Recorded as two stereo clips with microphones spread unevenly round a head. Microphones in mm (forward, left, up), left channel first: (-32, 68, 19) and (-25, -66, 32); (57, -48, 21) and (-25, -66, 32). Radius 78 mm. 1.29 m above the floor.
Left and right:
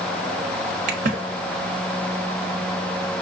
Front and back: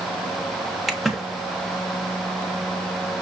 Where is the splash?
75° right, 0.9 m.